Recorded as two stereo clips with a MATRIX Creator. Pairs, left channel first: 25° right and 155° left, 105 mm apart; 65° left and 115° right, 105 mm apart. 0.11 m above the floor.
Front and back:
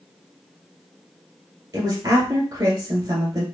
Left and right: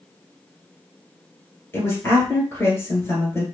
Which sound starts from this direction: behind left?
A woman speaking, at 1.7 s.